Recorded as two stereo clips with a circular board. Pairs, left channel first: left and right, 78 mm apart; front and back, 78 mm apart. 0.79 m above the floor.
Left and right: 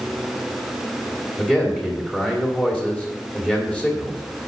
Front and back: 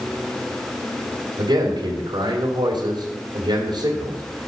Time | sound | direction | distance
1.4 | a man speaking | 170° left | 2.5 m